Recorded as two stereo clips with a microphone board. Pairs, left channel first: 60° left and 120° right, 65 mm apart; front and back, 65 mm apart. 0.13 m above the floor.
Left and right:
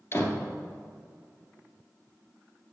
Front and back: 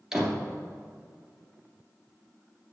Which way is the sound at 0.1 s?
95° left.